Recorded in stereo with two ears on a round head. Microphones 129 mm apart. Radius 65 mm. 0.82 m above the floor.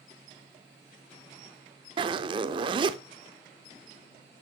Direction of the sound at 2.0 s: 35° right (ahead or behind).